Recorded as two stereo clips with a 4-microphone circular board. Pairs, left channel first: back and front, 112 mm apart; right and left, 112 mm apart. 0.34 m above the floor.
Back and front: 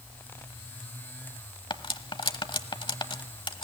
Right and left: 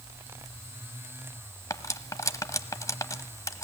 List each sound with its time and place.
1.7 s cutlery clinking: 145° right, 1.0 m